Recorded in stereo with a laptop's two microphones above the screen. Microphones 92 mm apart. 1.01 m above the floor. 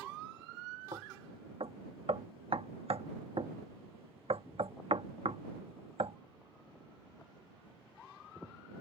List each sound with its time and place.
0.9 s knocking: 75° right (ahead or behind)